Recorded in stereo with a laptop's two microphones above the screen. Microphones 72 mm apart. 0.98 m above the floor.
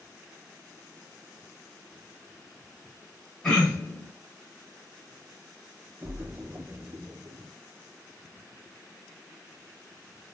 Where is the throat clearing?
10° left (ahead or behind), 1.1 m.